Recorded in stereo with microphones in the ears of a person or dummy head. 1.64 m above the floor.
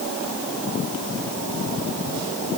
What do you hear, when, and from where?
Only background noise.